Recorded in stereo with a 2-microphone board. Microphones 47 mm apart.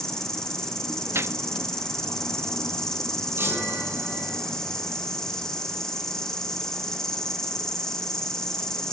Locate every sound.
0.0 s an insect: 10° left (ahead or behind), 1.6 m
1.1 s a gunshot: 65° right (ahead or behind), 0.6 m
3.4 s a chime: 50° right (ahead or behind), 7.5 m